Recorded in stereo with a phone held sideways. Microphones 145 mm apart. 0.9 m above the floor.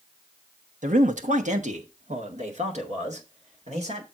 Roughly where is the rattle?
No rattle in this recording.